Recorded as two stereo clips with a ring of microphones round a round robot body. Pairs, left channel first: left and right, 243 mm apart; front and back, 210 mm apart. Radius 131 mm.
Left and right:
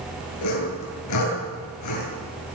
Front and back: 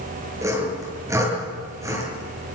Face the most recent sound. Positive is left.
turn(degrees=105)